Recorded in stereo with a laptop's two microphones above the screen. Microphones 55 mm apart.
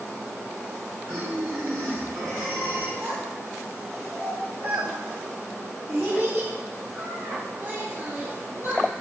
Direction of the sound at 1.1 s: 75° right (ahead or behind).